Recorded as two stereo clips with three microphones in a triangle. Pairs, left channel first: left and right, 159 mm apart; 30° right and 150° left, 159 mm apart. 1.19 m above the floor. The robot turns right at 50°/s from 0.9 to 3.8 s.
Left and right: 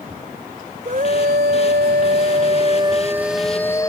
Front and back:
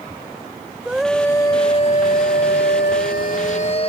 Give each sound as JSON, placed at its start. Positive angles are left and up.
{"t": 0.8, "sound": "a scream", "azimuth_deg": -125}